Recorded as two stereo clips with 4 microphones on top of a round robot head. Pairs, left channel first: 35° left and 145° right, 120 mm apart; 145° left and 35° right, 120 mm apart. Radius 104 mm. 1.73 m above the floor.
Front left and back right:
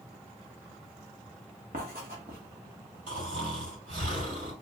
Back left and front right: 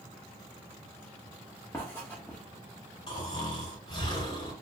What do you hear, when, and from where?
1.7 s writing: 145° right, 1.3 m
3.1 s snoring: 165° right, 3.5 m